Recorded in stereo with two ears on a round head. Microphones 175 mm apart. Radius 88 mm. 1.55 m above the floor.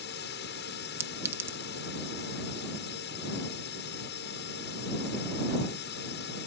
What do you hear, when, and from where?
0.0 s a drone: 60° left (ahead or behind)
1.0 s a clink: 15° right (ahead or behind)